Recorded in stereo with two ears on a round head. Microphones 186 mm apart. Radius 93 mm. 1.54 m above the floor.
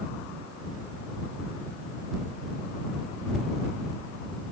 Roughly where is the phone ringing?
I don't hear a phone ringing.